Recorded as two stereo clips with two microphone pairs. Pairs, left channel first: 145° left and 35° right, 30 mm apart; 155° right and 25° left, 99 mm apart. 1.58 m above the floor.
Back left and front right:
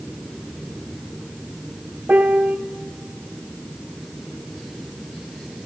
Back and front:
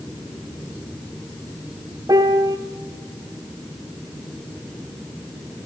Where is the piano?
20° right, 0.6 m.